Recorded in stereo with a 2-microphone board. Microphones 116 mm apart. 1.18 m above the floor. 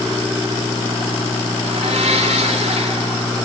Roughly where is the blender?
Right.